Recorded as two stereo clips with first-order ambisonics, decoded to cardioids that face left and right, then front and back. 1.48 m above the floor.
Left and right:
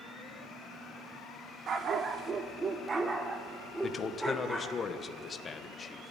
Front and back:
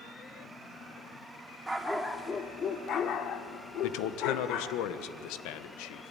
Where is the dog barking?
110° right, 1.1 m; by 4.7 s straight ahead, 2 m.